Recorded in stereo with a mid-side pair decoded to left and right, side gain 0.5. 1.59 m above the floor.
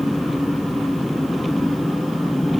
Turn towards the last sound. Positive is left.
turn(degrees=10)